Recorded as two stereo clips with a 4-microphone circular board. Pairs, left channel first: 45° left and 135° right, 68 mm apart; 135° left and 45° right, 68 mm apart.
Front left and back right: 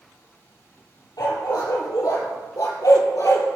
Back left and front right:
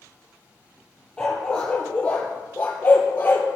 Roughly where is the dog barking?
Ahead left.